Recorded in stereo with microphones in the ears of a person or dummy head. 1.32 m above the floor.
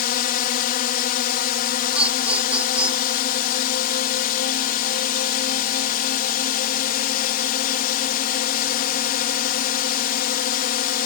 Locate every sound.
0.0 s a drone: 50° left (ahead or behind)
1.9 s laughter: 5° right (ahead or behind)